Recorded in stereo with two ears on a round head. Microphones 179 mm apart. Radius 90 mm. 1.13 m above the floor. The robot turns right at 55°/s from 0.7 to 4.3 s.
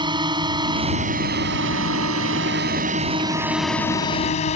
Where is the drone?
25° right (ahead or behind); by 4.6 s 35° left (ahead or behind).